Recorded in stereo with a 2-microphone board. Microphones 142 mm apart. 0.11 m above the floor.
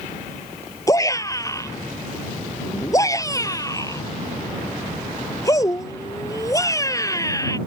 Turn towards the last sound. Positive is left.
turn(degrees=25)  # may be behind; listen again after turning